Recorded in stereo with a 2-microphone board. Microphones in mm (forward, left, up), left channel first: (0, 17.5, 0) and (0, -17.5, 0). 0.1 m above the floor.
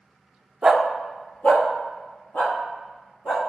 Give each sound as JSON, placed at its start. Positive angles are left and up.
{"t": 0.6, "sound": "a dog barking", "side_deg": -15, "distance_m": 0.7}